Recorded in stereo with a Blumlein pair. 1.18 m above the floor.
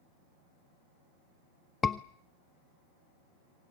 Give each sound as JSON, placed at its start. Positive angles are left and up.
{"t": 1.8, "sound": "a scream", "azimuth_deg": 15, "distance_m": 0.6}